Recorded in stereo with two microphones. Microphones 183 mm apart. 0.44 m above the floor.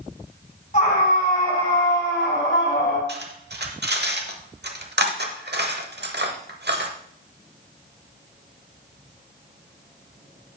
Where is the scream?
40° left (ahead or behind), 3 m; by 3.0 s 75° left (ahead or behind), 4 m.